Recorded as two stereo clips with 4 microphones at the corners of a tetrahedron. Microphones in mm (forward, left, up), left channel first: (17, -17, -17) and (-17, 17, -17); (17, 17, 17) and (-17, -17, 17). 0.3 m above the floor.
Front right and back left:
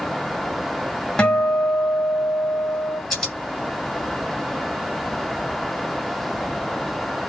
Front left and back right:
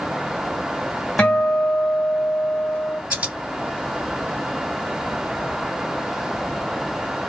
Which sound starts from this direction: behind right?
Scissors, at 3.1 s.